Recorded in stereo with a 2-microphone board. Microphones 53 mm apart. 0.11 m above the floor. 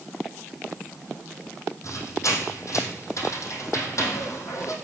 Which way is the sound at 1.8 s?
70° left (ahead or behind).